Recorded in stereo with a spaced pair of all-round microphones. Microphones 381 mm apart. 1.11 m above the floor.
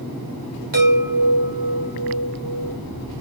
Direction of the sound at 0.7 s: 60° right (ahead or behind).